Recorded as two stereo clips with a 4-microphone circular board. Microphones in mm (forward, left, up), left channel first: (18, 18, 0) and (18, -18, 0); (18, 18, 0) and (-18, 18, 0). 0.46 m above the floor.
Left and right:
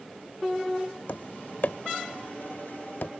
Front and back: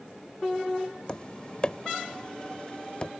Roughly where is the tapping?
Ahead left.